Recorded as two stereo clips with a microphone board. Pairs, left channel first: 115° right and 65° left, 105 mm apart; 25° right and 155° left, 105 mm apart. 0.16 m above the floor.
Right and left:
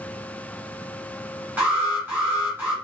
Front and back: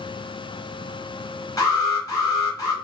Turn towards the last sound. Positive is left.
turn(degrees=10)